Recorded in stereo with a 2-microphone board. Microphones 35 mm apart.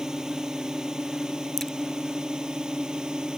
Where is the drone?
20° right (ahead or behind).